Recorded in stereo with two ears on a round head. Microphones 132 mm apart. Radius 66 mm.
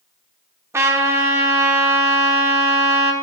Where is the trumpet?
20° right (ahead or behind), 0.9 m.